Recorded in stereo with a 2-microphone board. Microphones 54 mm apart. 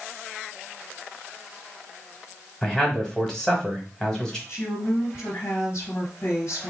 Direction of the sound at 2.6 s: 10° left (ahead or behind).